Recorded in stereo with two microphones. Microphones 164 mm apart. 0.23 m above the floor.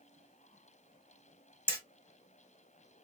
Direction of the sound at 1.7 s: 10° left (ahead or behind).